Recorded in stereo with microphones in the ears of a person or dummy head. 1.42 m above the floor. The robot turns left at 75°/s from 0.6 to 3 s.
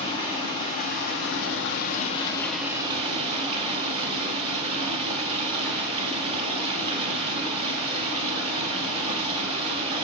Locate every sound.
0.0 s running water: 150° left, 0.7 m; by 10.0 s 30° right, 0.7 m